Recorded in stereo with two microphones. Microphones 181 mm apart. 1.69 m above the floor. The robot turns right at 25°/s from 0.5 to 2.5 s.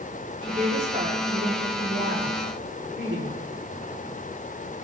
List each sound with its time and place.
0.4 s a woman speaking: 150° right, 5 m; by 3.5 s 100° right, 5 m